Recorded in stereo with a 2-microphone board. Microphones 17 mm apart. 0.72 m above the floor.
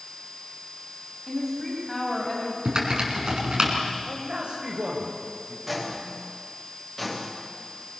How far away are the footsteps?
About 6 m.